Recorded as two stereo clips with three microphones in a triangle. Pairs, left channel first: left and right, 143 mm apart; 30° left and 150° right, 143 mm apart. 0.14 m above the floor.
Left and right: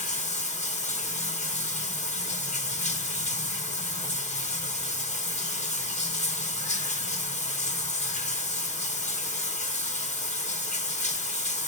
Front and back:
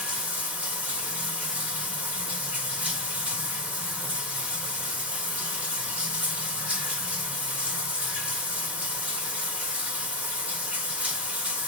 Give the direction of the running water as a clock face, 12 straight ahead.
8 o'clock.